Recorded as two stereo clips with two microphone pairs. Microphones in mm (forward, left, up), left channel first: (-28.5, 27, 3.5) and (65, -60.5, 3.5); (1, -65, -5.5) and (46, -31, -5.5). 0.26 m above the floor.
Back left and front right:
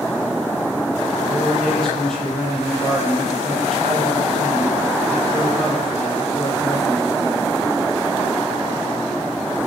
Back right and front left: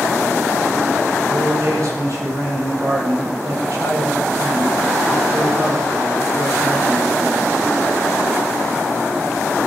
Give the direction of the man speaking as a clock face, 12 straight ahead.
10 o'clock.